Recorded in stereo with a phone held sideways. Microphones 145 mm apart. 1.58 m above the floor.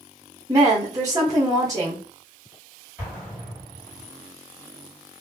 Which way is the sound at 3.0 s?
10° right (ahead or behind).